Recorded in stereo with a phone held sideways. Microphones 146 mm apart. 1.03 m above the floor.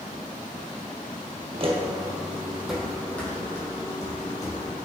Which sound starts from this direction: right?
Footsteps, at 1.5 s.